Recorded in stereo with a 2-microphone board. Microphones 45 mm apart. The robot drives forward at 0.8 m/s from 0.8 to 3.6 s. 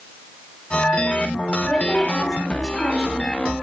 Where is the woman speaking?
20° left (ahead or behind), 0.9 m; by 3.5 s 10° left (ahead or behind), 1.8 m.